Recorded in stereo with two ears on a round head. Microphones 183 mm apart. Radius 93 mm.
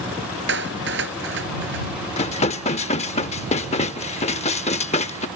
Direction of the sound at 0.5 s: 55° right (ahead or behind).